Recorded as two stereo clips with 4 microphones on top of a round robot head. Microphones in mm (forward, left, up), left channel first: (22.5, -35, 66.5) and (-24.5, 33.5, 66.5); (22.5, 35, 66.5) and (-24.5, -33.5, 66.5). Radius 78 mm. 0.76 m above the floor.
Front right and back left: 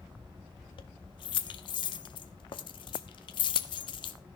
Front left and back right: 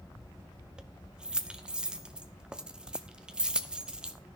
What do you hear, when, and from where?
0.8 s keys jangling: 45° right, 1.0 m